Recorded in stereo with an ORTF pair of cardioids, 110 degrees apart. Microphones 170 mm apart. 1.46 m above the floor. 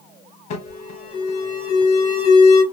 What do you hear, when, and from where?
0.5 s an alarm: 55° left, 1.4 m